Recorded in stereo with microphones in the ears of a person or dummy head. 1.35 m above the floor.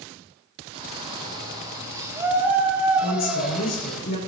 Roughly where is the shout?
Right.